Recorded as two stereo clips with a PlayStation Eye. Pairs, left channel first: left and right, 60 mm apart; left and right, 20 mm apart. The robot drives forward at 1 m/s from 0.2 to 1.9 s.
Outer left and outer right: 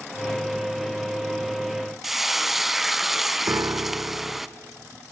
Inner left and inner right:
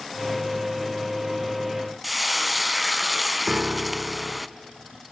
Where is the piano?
50° right (ahead or behind), 0.7 m.